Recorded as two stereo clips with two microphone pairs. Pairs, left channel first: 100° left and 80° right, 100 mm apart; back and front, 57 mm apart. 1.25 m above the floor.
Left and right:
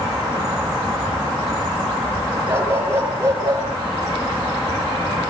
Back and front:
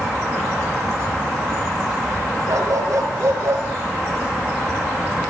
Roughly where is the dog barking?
Ahead.